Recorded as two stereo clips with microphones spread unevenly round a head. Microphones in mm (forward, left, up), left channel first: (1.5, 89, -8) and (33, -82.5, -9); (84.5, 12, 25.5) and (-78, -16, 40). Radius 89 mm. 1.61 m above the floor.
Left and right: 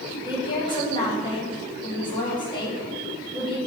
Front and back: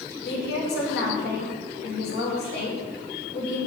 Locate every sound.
0.2 s a woman speaking: 35° left, 1.5 m